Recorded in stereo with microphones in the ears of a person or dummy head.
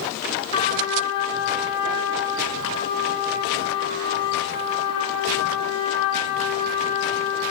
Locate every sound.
0.5 s a trumpet: 30° left (ahead or behind), 6.5 m